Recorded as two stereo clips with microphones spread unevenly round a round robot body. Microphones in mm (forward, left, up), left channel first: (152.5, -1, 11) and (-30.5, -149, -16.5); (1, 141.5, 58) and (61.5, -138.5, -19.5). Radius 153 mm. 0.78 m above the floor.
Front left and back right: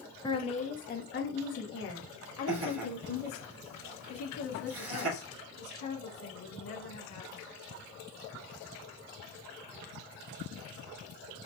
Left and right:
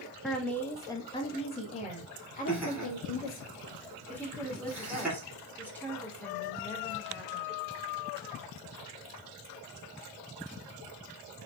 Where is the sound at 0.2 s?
25° right, 0.9 m; by 3.5 s 40° left, 2.0 m.